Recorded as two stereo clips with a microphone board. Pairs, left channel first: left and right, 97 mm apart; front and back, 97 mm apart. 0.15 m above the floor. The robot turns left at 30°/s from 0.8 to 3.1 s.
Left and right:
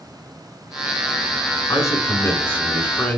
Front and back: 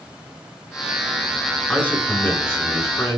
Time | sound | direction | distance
1.7 | a man speaking | 70° left | 1.3 m